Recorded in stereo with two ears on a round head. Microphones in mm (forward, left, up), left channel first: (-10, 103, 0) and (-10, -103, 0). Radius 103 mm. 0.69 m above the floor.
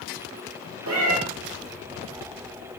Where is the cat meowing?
65° right (ahead or behind), 1.5 m.